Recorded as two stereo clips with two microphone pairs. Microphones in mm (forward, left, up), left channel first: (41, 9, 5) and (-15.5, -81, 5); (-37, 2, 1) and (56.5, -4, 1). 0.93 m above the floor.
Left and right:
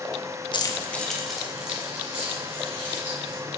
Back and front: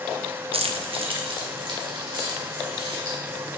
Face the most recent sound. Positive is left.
turn(degrees=-50)